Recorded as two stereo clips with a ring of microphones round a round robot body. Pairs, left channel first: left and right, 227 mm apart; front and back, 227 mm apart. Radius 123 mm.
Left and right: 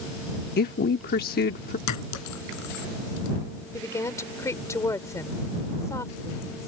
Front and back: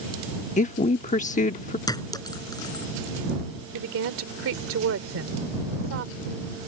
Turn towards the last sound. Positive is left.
turn(degrees=165)